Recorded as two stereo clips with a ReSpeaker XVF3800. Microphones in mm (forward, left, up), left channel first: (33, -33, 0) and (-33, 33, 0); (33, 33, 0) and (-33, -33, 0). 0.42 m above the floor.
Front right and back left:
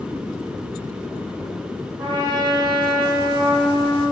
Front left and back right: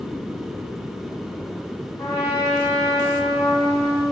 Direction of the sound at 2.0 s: 100° left.